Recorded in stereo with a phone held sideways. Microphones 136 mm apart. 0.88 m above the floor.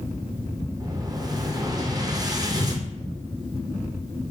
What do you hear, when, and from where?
0.8 s an explosion: 30° right (ahead or behind), 0.6 m